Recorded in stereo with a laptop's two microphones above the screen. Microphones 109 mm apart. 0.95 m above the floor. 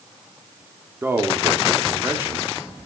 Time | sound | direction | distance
1.0 | a man speaking | 20° right (ahead or behind) | 2.5 m